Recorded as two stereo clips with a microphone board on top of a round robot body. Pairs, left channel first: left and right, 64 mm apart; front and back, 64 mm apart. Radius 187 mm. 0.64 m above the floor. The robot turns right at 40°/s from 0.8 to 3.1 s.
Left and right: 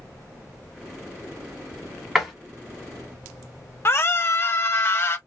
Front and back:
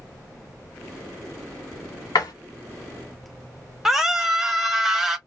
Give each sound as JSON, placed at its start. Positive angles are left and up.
{"t": 2.1, "sound": "a door slam", "azimuth_deg": -5, "distance_m": 1.7}
{"t": 3.9, "sound": "a scream", "azimuth_deg": 100, "distance_m": 1.3}